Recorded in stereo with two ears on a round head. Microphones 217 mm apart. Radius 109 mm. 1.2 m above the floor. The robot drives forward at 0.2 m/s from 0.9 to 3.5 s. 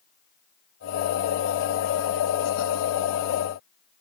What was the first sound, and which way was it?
Only background noise.